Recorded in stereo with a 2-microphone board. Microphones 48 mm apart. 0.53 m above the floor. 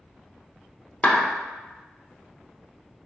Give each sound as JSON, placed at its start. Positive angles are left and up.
{"t": 1.0, "sound": "a clap", "side_deg": 30, "distance_m": 0.8}